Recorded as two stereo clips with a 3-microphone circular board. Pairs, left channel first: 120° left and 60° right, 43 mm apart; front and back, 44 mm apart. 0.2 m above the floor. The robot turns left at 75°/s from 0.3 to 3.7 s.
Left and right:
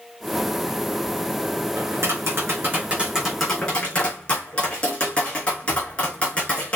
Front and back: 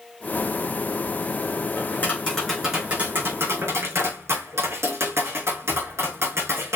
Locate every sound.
1.8 s tapping: 35° right, 4.5 m; by 6.8 s straight behind, 4.5 m